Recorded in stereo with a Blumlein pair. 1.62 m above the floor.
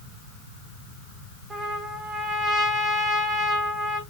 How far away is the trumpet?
About 1.4 m.